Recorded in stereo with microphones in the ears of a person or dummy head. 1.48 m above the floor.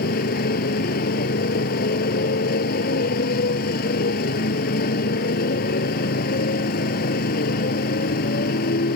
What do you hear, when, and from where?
0.0 s a motorcycle: 50° left (ahead or behind)